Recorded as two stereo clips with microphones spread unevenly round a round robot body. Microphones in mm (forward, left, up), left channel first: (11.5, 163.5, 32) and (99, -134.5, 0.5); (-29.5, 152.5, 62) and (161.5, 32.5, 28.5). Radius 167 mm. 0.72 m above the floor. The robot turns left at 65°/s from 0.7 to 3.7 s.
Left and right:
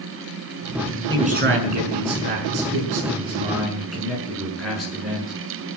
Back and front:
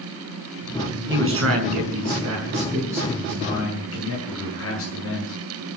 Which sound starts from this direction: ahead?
A man speaking, at 1.1 s.